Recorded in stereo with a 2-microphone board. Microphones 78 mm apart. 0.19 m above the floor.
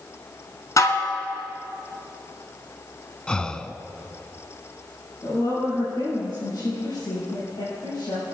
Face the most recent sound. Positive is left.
turn(degrees=70)  # may be behind; listen again after turning